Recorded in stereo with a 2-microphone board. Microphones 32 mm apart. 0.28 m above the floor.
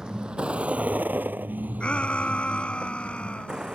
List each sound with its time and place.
0.0 s a vehicle: 20° right (ahead or behind); by 3.8 s 25° right (ahead or behind)
1.8 s a shout: 40° left (ahead or behind)